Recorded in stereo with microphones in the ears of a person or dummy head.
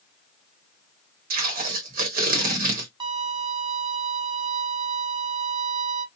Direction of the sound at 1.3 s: 50° right (ahead or behind).